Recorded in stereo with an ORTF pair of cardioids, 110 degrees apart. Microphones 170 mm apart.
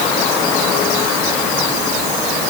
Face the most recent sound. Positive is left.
No sound to turn to.